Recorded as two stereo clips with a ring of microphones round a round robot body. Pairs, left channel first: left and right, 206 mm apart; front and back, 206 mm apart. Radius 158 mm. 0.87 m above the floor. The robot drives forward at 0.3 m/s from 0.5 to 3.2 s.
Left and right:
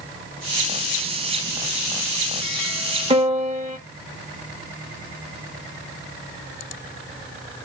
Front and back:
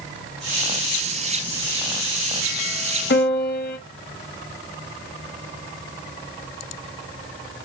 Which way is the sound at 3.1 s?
35° right.